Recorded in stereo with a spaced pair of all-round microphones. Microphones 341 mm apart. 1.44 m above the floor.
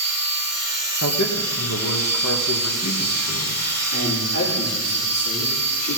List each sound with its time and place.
0.0 s a machine running: 50° right (ahead or behind), 1.6 m
1.0 s a man speaking: 50° left (ahead or behind), 1.5 m
3.9 s a man speaking: 55° left (ahead or behind), 4.5 m